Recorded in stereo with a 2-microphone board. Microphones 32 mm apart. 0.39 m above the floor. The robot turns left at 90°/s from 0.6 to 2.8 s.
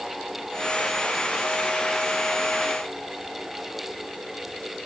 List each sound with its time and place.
Only background noise.